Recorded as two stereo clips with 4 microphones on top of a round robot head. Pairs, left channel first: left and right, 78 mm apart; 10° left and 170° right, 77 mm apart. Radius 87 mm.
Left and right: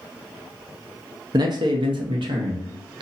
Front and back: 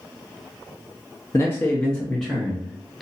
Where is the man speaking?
55° right, 0.5 m; by 3.0 s 80° right, 1.3 m.